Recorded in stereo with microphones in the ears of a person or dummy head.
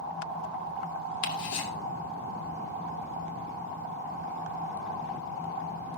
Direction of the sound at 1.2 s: 75° left (ahead or behind).